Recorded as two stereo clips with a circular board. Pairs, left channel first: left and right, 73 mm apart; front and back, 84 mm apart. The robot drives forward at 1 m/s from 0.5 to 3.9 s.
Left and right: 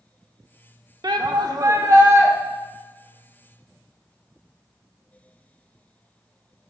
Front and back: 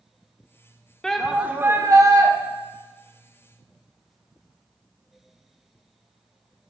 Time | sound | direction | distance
1.0 | a shout | 80° right | 0.9 m